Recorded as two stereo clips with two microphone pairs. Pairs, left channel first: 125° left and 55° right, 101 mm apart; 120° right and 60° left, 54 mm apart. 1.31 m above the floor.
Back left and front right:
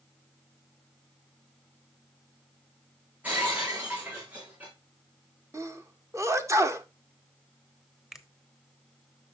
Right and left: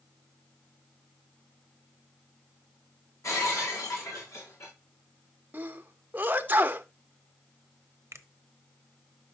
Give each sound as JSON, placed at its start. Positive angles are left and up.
{"t": 3.2, "sound": "breaking glass", "azimuth_deg": -130, "distance_m": 6.0}
{"t": 5.5, "sound": "a sneeze", "azimuth_deg": 0, "distance_m": 1.1}
{"t": 8.1, "sound": "a finger snap", "azimuth_deg": 30, "distance_m": 0.9}